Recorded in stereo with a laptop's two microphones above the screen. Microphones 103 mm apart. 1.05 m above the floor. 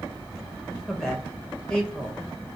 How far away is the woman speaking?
About 0.9 m.